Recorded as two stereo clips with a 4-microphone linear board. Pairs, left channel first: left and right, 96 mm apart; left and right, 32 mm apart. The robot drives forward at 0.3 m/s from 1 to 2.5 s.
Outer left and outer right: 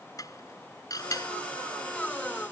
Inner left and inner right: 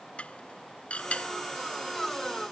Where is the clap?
No clap in this recording.